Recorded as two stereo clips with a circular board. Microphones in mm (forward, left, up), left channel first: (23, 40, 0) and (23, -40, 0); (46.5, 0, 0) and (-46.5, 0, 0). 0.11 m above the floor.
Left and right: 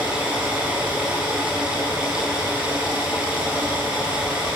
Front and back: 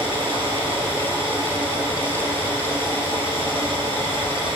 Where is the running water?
165° right, 7 m.